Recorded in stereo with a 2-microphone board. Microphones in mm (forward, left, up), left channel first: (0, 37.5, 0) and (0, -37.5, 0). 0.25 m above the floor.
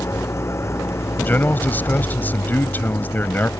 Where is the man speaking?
25° left (ahead or behind).